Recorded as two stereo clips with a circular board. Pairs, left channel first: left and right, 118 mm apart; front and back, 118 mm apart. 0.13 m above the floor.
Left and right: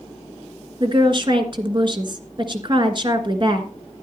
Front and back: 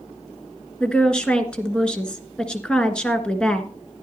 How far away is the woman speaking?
About 1.4 m.